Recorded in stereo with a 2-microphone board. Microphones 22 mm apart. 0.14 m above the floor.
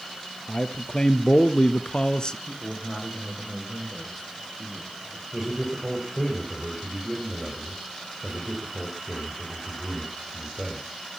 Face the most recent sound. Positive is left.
turn(degrees=-15)  # may be behind; listen again after turning